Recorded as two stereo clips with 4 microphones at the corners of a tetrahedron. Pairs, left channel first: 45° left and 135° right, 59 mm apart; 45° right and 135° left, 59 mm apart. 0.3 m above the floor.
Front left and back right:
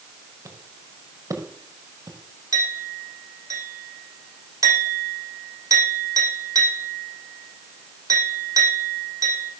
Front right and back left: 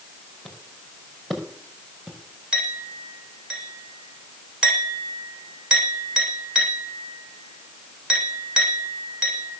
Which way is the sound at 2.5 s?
150° right.